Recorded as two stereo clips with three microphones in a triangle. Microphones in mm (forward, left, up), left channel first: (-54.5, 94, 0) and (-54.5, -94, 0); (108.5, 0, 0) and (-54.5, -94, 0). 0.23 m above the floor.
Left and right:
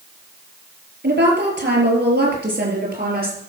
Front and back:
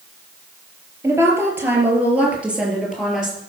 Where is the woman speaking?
75° right, 5 m; by 3.4 s 60° right, 5.5 m.